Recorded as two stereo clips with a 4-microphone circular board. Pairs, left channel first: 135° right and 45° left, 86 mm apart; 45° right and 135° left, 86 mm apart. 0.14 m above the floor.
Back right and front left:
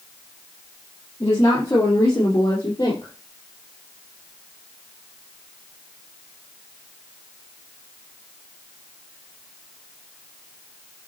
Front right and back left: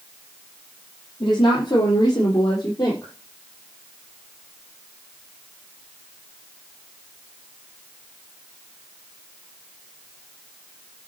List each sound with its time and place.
1.2 s a woman speaking: 80° right, 5.5 m; by 3.1 s 90° right, 4 m